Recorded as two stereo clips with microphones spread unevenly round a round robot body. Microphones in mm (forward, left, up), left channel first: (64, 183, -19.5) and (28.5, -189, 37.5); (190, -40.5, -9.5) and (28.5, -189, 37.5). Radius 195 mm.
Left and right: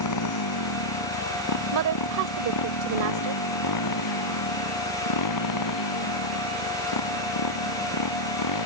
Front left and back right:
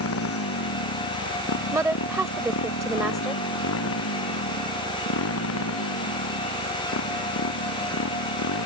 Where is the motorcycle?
45° left; by 8.7 s 55° left.